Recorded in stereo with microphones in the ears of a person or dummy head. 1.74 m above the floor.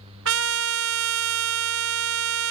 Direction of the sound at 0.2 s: 70° right (ahead or behind).